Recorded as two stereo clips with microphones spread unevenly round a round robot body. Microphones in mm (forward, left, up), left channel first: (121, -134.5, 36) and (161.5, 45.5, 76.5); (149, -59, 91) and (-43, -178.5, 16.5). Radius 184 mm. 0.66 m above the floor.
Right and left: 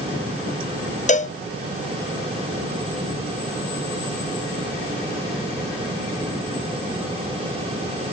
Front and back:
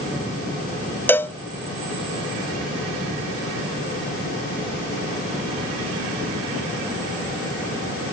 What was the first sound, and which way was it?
A cowbell, 60° right.